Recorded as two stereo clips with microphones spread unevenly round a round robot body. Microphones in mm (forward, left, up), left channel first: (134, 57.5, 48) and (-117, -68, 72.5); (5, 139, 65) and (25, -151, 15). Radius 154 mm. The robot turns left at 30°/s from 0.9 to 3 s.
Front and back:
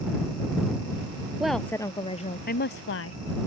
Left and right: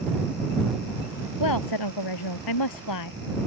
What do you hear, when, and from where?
1.4 s a woman speaking: 120° left; by 3.2 s 70° left